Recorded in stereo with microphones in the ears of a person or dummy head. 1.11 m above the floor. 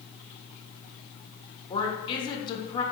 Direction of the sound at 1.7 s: 25° left (ahead or behind).